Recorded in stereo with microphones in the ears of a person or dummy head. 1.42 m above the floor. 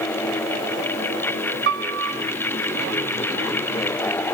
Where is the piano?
65° right (ahead or behind), 1.1 m.